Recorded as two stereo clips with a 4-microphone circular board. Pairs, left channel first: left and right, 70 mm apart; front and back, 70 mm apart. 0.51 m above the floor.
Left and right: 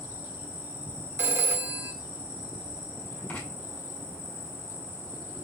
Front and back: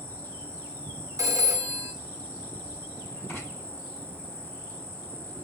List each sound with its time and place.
0.0 s an insect: 55° right, 2 m
1.2 s a phone ringing: 145° right, 0.6 m
3.3 s writing: 45° left, 1.6 m